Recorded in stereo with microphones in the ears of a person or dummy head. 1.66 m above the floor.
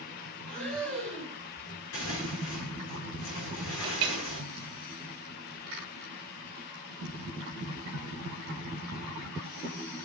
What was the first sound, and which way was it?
Breathing, 5° left (ahead or behind).